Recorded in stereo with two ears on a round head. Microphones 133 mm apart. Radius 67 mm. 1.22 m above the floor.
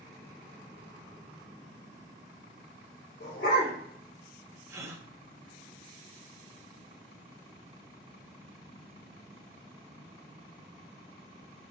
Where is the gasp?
20° right (ahead or behind), 0.7 m.